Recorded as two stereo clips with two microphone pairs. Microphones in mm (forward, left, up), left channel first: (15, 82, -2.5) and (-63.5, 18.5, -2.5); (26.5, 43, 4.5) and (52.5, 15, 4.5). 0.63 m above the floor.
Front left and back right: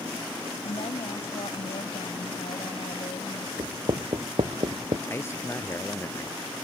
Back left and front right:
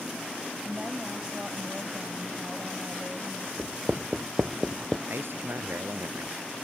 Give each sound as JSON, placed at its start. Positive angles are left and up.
{"t": 0.6, "sound": "a woman speaking", "azimuth_deg": 35}
{"t": 3.6, "sound": "writing", "azimuth_deg": -110}
{"t": 5.1, "sound": "a man speaking", "azimuth_deg": -25}